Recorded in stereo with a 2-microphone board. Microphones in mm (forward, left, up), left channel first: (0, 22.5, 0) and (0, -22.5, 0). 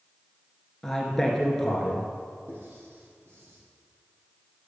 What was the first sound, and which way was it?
A man speaking, 5° left (ahead or behind).